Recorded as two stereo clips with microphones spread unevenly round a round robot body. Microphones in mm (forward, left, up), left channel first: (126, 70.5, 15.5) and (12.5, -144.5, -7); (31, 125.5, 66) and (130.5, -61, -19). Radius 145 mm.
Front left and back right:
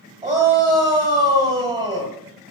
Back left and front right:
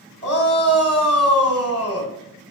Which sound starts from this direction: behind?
A shout, at 0.2 s.